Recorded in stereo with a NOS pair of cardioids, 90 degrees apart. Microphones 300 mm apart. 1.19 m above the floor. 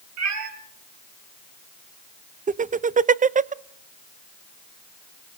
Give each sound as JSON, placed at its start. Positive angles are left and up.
{"t": 0.2, "sound": "a cat meowing", "azimuth_deg": -65, "distance_m": 4.0}
{"t": 2.5, "sound": "laughter", "azimuth_deg": -25, "distance_m": 0.7}